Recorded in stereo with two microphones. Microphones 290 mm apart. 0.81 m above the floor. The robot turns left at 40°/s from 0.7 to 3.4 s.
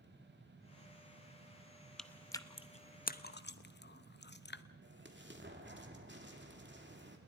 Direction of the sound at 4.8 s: 40° right (ahead or behind).